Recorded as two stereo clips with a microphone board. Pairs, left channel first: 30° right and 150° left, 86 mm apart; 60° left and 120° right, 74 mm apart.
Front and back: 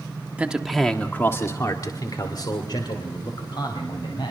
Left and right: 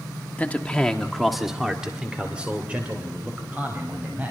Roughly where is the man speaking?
Left.